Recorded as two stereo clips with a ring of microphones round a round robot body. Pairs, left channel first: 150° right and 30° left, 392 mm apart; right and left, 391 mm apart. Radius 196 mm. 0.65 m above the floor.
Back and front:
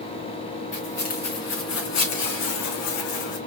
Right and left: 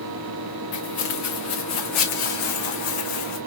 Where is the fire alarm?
No fire alarm in this recording.